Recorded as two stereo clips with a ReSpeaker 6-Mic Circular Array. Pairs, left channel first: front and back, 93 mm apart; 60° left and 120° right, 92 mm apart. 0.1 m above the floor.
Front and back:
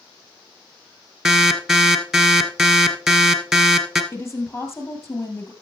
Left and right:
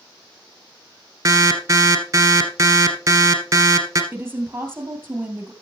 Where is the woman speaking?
55° right, 2.5 m.